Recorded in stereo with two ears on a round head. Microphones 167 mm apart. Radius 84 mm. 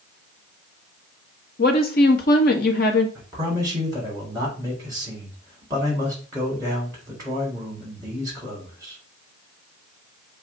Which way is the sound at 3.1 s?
20° right (ahead or behind).